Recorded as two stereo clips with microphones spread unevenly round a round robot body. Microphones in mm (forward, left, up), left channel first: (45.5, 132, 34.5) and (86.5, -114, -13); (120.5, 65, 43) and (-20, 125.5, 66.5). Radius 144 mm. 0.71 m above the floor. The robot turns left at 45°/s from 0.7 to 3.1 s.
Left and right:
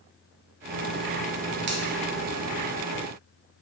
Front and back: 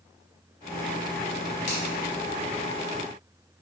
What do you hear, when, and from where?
1.7 s a finger snap: 50° right, 0.5 m; by 1.8 s 55° right, 0.5 m